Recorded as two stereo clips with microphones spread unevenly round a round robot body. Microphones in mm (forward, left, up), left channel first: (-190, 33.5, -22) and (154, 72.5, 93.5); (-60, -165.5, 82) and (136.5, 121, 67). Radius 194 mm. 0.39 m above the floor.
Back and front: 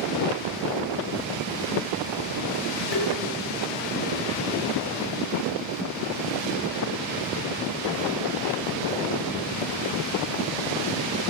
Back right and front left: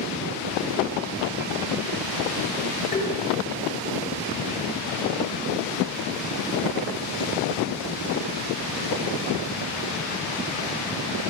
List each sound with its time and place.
2.9 s tapping: 160° left, 9.5 m